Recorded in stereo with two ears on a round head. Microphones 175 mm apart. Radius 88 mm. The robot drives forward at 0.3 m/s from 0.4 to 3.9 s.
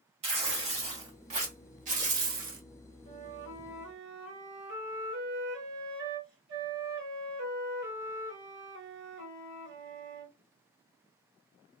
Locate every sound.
0.2 s tearing paper: 30° right (ahead or behind), 1.4 m; by 2.6 s 45° right (ahead or behind), 1.0 m
3.0 s a flute: 55° right (ahead or behind), 2.5 m; by 10.3 s 60° right (ahead or behind), 2.5 m